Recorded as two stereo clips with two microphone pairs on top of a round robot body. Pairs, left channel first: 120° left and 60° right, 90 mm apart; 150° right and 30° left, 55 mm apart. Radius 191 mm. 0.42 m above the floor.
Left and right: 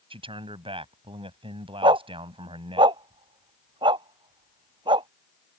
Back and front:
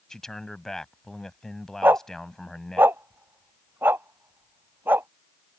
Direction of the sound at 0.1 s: 75° right.